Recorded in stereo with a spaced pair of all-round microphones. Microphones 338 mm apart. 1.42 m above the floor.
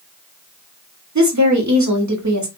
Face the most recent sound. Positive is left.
turn(degrees=-55)  # may be behind; listen again after turning